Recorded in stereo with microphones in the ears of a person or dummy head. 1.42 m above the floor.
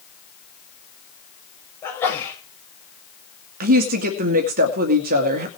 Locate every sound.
1.8 s a sneeze: 20° left (ahead or behind), 7 m
3.6 s a woman speaking: 50° right (ahead or behind), 2 m